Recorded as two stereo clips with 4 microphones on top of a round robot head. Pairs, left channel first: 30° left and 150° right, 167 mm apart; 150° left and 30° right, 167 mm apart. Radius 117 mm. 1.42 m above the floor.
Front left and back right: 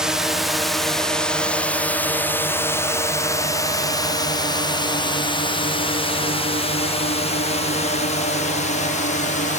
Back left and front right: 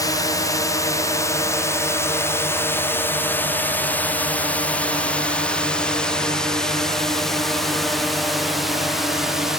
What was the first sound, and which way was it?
A drone, 130° left.